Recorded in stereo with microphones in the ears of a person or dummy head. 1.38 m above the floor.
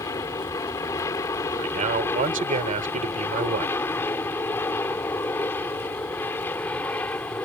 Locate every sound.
0.0 s an aircraft: 15° left (ahead or behind); by 7.5 s 10° left (ahead or behind)
1.6 s a man speaking: 40° right (ahead or behind)